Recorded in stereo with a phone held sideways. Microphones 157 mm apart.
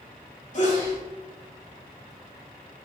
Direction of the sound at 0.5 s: 50° left (ahead or behind).